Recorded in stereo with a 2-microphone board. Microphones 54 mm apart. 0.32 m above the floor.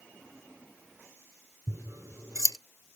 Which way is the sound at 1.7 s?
85° right.